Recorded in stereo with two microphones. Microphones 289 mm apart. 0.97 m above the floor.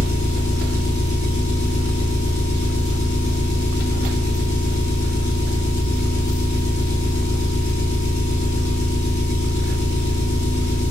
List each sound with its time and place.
0.0 s an engine running: 70° left (ahead or behind), 1.1 m